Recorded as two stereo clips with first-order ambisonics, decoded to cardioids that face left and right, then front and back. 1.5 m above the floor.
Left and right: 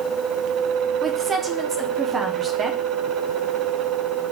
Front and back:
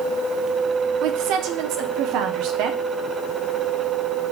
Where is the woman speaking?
155° right, 0.6 m.